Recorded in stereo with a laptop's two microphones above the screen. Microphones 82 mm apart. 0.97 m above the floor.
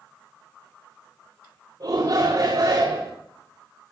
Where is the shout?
60° right (ahead or behind), 3 m.